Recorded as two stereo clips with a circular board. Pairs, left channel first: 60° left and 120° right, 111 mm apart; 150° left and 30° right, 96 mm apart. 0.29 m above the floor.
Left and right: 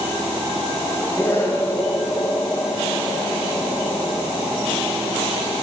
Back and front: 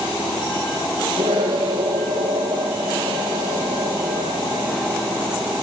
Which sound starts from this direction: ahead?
An explosion, at 1.2 s.